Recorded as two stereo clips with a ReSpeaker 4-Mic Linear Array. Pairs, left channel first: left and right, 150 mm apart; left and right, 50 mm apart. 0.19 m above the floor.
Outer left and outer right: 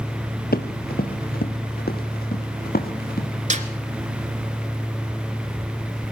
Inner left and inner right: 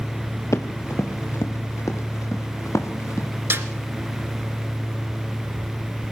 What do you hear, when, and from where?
0.5 s running footsteps: 85° left, 1.8 m; by 3.3 s 90° left, 4 m
3.5 s a snare drum: 50° right (ahead or behind), 1.6 m